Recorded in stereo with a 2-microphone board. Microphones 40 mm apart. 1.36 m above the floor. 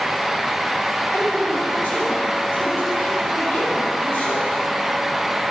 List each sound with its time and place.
1.1 s a woman speaking: 55° left (ahead or behind), 5 m